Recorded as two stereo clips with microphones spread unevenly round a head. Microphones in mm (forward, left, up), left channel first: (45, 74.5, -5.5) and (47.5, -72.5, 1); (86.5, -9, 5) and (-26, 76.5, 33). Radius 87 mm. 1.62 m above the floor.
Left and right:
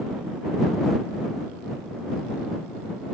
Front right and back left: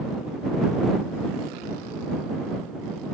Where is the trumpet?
No trumpet in this recording.